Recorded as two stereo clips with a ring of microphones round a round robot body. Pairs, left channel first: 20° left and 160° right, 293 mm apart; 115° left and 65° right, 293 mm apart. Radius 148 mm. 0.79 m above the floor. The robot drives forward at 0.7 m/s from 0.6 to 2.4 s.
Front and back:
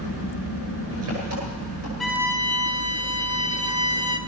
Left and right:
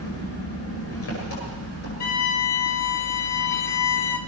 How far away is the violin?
About 1.0 m.